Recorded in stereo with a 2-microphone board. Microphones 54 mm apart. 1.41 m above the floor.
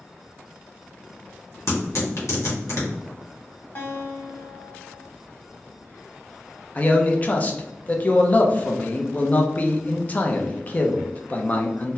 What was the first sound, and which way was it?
Tearing paper, 65° left (ahead or behind).